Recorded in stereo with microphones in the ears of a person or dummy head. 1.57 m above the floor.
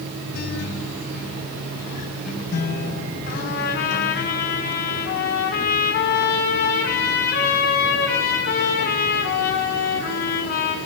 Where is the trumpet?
50° left (ahead or behind), 6 m.